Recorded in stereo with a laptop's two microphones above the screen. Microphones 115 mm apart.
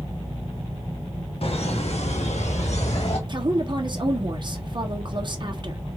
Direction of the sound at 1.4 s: 60° left (ahead or behind).